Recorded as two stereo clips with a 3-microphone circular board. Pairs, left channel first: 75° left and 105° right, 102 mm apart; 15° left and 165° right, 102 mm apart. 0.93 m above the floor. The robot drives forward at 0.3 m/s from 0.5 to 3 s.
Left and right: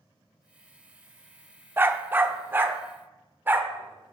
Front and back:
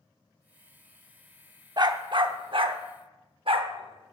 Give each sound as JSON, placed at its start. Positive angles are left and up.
{"t": 1.8, "sound": "a dog barking", "azimuth_deg": -165, "distance_m": 0.6}